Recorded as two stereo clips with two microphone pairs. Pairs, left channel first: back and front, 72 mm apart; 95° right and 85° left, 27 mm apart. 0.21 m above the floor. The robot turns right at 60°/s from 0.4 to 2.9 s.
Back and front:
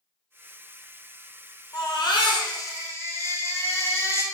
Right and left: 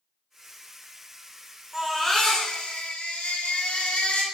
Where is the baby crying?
155° left, 2 m; by 4.2 s 135° right, 2 m.